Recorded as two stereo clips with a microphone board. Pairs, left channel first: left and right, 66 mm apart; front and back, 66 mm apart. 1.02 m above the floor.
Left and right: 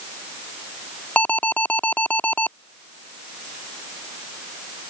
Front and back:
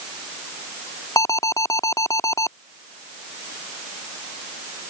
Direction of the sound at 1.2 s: 25° left.